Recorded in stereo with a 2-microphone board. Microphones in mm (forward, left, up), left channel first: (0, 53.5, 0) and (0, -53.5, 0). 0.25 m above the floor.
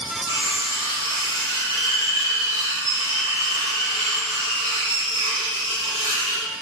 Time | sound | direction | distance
0.3 | cutlery clinking | 70° right (ahead or behind) | 2.5 m